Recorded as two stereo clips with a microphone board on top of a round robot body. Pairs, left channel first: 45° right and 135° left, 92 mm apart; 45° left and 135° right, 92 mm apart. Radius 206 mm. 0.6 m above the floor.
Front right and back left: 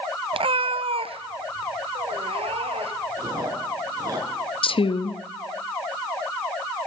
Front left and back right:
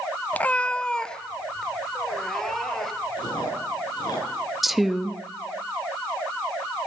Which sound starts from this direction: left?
Chewing, at 3.2 s.